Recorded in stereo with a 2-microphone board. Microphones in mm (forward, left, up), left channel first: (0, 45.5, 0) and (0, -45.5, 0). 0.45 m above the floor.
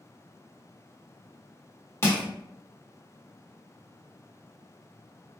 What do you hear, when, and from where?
2.0 s crushing: 30° left (ahead or behind), 0.9 m